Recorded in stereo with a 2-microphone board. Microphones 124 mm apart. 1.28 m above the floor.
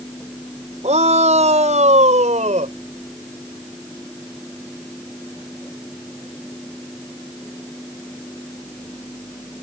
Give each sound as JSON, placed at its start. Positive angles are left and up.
{"t": 0.8, "sound": "a shout", "side_deg": -75}